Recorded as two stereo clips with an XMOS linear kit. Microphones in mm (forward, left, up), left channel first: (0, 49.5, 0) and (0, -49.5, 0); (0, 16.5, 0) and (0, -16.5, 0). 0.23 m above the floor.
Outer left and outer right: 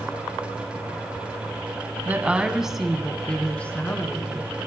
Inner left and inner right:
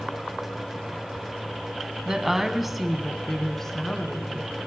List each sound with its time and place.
2.0 s a woman speaking: 20° right (ahead or behind), 1.4 m; by 4.6 s 30° left (ahead or behind), 2.0 m